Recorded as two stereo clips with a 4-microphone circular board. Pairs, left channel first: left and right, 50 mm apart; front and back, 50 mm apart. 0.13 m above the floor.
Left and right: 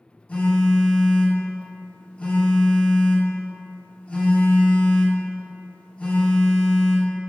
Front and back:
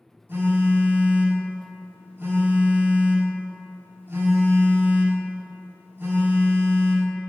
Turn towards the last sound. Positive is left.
turn(degrees=150)